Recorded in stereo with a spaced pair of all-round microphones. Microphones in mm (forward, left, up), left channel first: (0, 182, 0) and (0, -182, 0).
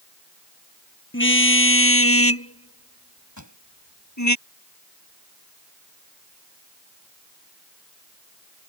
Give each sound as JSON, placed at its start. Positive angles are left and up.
{"t": 1.1, "sound": "a car horn", "side_deg": 30}
{"t": 3.4, "sound": "a pop", "side_deg": 50}